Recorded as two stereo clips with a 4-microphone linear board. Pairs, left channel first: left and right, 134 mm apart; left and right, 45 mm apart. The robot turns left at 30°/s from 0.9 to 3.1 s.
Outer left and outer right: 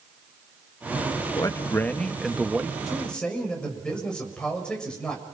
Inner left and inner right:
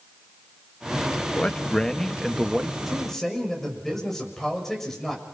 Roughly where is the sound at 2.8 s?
Centre.